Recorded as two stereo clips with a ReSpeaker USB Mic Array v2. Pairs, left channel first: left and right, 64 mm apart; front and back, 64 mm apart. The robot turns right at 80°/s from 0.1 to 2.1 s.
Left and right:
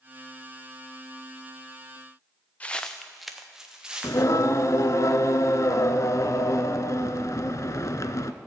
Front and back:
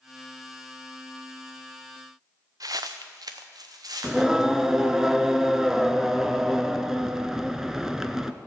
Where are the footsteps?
155° left, 0.8 m; by 5.0 s 160° right, 3 m.